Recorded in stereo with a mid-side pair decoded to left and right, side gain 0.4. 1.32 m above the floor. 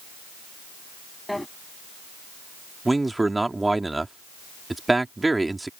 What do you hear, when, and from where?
1.3 s a drawer: 5° left
2.9 s a man speaking: 20° right